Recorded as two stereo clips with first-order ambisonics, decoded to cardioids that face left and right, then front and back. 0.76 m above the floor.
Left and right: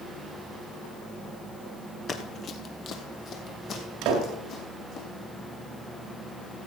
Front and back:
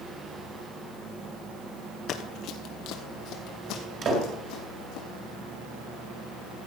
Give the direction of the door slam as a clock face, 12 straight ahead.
4 o'clock.